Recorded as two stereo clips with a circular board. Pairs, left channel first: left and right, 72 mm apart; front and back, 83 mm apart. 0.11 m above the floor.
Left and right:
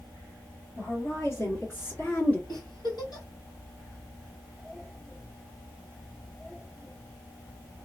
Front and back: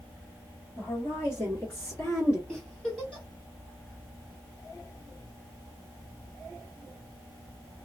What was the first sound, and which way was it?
A woman speaking, 55° left.